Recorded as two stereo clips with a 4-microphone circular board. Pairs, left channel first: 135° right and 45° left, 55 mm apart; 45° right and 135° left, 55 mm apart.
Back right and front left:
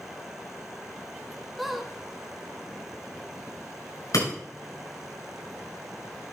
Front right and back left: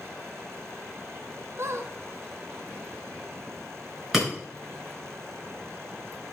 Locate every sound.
1.6 s a squeak: 135° left, 0.9 m
4.1 s breaking glass: 140° right, 6.5 m